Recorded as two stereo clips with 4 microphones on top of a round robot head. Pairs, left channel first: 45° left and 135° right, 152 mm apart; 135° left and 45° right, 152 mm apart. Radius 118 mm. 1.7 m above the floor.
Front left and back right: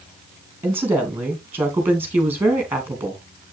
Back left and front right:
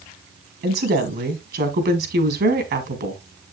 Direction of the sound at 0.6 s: 55° right.